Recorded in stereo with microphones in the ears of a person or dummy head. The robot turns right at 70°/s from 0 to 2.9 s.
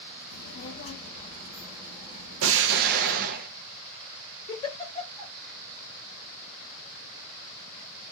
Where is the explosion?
80° right, 0.6 m; by 3.5 s 45° right, 0.6 m.